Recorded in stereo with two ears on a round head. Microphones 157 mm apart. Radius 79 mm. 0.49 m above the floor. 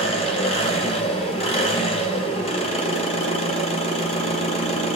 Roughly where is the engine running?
Left.